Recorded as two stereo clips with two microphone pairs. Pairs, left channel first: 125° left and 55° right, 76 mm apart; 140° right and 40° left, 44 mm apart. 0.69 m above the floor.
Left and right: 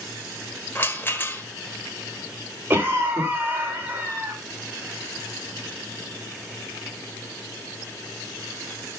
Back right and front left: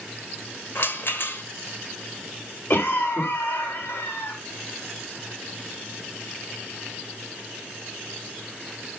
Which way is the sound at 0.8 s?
175° right.